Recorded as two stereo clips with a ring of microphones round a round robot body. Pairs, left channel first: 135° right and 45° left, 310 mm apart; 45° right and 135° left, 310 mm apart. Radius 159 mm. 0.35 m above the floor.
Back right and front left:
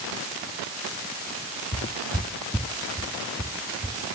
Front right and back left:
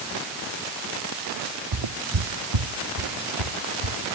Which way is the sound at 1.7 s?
160° left.